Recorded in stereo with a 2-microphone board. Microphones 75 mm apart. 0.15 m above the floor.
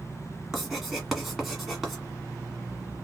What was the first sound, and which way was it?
Writing, centre (ahead or behind).